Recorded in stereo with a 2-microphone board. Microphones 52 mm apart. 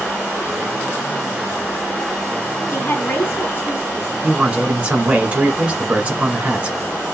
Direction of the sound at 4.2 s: 25° right (ahead or behind).